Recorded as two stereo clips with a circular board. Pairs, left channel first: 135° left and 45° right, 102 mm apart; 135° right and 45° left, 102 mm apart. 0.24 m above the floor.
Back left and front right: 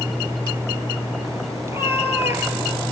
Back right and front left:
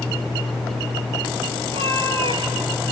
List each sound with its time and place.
1.6 s a cat meowing: 20° left, 2 m; by 2.8 s 25° left, 0.7 m